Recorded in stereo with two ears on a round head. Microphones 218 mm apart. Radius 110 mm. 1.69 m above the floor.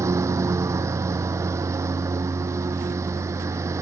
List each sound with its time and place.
0.0 s a lawn mower: 10° right (ahead or behind)